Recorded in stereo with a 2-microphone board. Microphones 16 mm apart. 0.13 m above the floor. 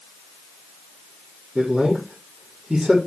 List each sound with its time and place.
1.6 s a man speaking: 60° right (ahead or behind), 5.5 m